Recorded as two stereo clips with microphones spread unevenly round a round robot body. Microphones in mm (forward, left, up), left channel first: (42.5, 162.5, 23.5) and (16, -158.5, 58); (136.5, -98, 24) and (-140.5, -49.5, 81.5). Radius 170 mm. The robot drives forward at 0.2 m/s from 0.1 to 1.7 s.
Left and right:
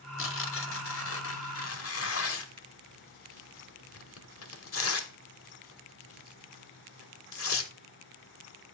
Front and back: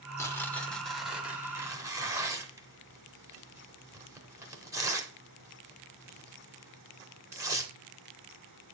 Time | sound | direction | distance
0.2 | tearing paper | 55° left | 1.0 m